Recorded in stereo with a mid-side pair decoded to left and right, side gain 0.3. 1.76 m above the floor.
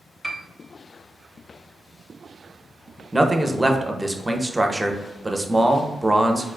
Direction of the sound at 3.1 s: 15° right.